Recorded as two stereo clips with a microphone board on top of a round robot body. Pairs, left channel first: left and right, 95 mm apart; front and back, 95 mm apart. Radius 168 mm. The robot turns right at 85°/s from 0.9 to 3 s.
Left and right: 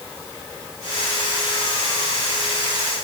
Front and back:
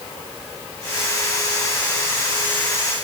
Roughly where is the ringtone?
No ringtone in this recording.